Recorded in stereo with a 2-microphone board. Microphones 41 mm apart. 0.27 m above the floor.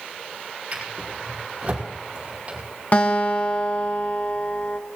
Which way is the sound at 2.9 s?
45° left (ahead or behind).